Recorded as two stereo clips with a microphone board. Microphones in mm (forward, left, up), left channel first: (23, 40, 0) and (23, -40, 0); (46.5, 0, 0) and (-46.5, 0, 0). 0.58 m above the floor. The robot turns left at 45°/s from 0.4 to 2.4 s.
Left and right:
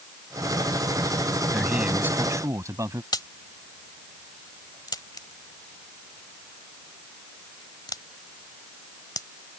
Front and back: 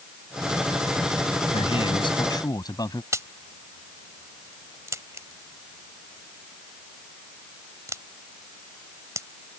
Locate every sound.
1.5 s a man speaking: 5° right; by 3.0 s 45° right
3.1 s a crack: 125° left